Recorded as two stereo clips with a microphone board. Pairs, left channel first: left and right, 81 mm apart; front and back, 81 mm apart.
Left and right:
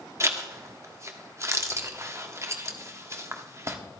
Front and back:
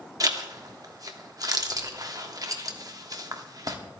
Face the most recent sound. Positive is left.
turn(degrees=-145)